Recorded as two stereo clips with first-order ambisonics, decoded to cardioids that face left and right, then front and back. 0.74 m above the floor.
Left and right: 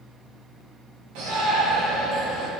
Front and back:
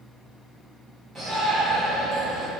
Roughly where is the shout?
Right.